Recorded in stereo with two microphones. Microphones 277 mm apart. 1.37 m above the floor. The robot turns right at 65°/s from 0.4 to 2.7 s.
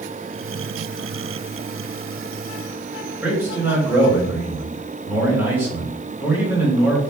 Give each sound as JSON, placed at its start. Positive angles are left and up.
{"t": 3.2, "sound": "a man speaking", "side_deg": -10, "distance_m": 2.5}